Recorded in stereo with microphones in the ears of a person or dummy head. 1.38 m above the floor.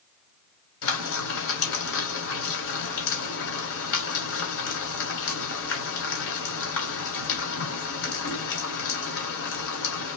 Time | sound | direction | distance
0.8 | frying | 65° left (ahead or behind) | 2.5 m